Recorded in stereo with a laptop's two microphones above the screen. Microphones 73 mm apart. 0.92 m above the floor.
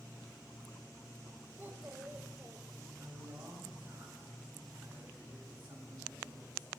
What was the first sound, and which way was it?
A child speaking, 30° right (ahead or behind).